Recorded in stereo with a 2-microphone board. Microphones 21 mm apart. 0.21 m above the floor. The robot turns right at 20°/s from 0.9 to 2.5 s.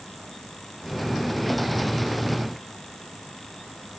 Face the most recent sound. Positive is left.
No sound to turn to.